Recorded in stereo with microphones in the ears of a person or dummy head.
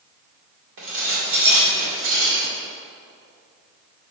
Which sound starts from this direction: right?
Dishes clattering, at 0.8 s.